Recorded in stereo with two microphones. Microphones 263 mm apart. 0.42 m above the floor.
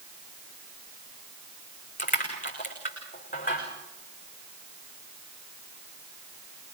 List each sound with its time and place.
2.0 s crushing: 30° left (ahead or behind), 6.5 m